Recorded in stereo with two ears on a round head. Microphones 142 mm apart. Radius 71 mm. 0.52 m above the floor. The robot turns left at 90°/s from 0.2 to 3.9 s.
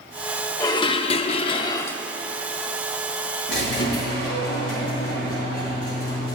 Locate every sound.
0.6 s dishes clattering: 145° left, 0.6 m; by 2.0 s 15° left, 0.6 m
3.5 s a squeak: 100° left, 4.5 m; by 6.4 s 60° left, 4.5 m